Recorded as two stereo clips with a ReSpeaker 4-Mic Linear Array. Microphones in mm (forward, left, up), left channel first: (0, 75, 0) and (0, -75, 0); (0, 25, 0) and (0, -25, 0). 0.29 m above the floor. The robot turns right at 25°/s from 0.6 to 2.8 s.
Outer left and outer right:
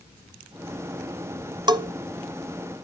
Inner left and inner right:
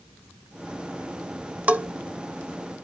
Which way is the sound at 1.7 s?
30° right (ahead or behind).